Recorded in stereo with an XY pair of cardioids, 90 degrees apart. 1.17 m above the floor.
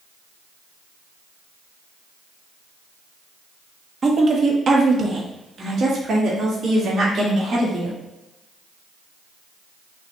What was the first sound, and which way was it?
A woman speaking, 40° right.